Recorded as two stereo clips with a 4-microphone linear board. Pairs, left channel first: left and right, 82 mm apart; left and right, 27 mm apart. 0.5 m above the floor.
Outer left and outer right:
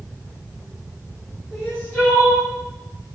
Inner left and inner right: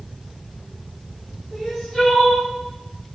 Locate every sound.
1.5 s crying: 20° left (ahead or behind), 1.3 m